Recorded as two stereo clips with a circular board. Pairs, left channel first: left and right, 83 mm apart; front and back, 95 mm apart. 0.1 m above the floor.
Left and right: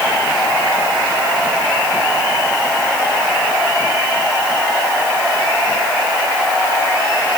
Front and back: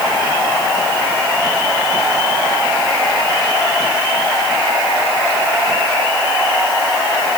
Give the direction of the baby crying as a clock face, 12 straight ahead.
I don't hear a baby crying.